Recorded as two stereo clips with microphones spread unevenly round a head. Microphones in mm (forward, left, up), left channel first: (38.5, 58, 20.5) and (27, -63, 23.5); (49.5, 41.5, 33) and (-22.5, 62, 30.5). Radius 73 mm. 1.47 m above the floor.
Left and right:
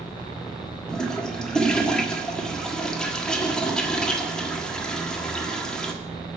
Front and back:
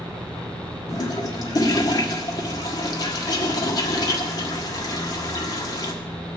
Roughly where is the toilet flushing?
Ahead.